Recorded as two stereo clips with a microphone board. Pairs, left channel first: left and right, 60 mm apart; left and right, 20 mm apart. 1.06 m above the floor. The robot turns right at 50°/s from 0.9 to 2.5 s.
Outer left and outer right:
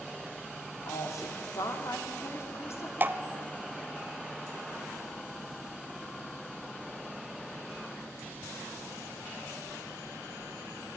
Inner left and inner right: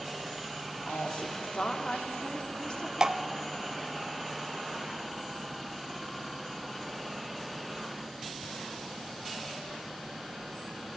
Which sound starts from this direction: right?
Dripping, at 3.0 s.